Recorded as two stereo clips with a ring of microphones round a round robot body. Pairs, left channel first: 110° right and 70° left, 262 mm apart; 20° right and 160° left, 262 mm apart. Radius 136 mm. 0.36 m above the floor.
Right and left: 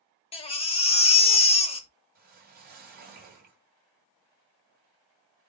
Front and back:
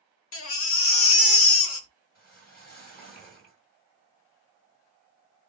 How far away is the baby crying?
About 0.9 m.